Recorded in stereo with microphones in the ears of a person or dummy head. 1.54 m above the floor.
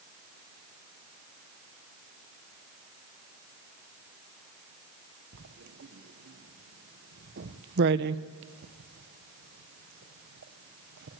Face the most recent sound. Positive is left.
turn(degrees=-65)  # may be behind; listen again after turning